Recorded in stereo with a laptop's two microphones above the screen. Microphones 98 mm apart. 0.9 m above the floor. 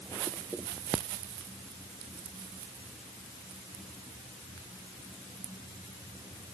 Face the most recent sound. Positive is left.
No sound to turn to.